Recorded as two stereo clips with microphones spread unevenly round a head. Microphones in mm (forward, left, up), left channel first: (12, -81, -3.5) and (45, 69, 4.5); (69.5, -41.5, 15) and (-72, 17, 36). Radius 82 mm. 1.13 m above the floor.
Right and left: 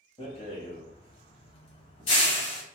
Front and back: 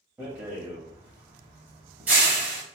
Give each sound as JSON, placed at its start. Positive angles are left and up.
{"t": 0.2, "sound": "a rattle", "azimuth_deg": -140, "distance_m": 1.1}